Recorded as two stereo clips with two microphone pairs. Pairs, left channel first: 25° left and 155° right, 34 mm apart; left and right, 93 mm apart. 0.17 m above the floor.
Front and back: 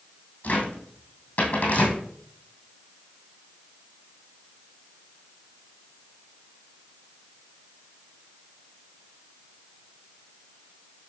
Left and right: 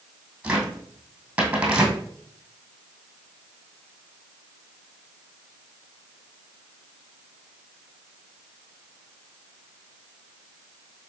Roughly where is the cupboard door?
Ahead.